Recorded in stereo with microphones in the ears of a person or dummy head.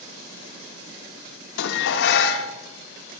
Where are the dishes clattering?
75° left (ahead or behind), 0.8 m.